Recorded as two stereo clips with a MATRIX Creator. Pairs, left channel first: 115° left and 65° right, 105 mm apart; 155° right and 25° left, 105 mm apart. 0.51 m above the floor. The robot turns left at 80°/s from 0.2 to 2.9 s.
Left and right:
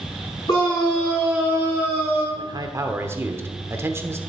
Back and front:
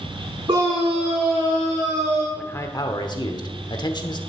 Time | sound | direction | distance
0.5 | a scream | 70° left | 4.5 m
2.4 | a man speaking | 85° right | 1.0 m